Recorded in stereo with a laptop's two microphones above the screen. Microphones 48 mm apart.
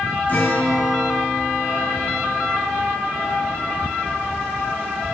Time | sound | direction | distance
0.3 | a guitar | 40° left (ahead or behind) | 0.9 m